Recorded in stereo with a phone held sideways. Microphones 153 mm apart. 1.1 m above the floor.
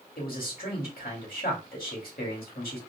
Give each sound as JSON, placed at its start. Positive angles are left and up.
{"t": 0.2, "sound": "a man speaking", "side_deg": 80, "distance_m": 2.5}